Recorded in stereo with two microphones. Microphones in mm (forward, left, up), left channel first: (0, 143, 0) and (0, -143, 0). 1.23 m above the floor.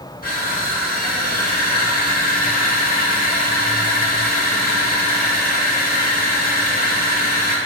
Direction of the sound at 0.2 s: 30° left (ahead or behind).